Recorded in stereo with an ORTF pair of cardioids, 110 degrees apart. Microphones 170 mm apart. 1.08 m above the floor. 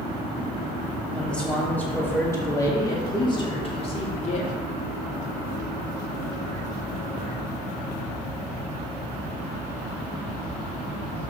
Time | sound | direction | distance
1.1 | a man speaking | 5° left | 3 m